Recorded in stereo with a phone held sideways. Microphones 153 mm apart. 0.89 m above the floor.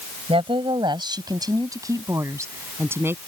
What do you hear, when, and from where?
0.3 s a woman speaking: 35° right (ahead or behind); by 3.2 s 15° right (ahead or behind)